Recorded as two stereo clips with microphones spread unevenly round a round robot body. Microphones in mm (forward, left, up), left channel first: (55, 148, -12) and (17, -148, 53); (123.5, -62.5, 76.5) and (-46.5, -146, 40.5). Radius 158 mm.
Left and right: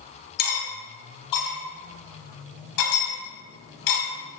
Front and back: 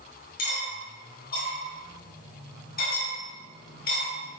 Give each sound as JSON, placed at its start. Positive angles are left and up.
{"t": 0.4, "sound": "cutlery clinking", "azimuth_deg": 85, "distance_m": 1.4}